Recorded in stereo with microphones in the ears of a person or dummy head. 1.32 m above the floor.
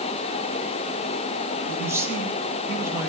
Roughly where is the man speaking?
Centre.